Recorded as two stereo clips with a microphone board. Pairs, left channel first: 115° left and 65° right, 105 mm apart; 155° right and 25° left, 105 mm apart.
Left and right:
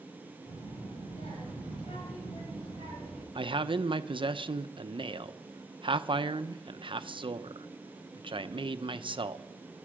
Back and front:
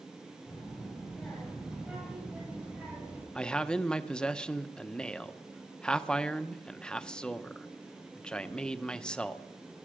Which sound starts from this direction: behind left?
A child speaking, at 0.5 s.